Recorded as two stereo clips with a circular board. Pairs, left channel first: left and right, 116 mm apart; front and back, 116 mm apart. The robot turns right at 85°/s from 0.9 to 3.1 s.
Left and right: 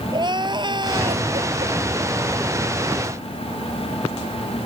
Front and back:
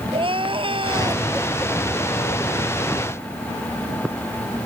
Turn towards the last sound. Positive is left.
turn(degrees=50)